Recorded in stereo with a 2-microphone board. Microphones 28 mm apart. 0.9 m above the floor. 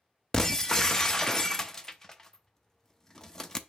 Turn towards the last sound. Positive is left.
turn(degrees=15)  # may be behind; listen again after turning